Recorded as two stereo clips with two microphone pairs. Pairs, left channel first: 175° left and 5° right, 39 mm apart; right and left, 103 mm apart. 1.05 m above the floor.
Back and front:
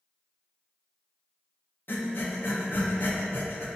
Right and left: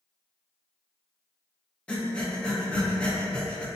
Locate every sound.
1.9 s breathing: 170° right, 0.6 m